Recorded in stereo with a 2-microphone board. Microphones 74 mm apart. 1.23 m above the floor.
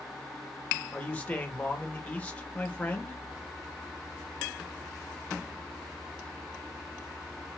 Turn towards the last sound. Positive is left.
turn(degrees=20)  # may be behind; listen again after turning